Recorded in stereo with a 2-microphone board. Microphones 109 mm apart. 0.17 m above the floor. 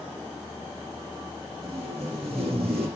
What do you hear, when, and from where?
1.6 s tape being pulled: 60° right (ahead or behind), 8.5 m